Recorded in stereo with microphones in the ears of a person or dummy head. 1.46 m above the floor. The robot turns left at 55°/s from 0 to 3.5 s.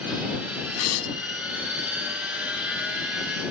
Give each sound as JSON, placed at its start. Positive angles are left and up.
{"t": 0.8, "sound": "tearing paper", "side_deg": 80}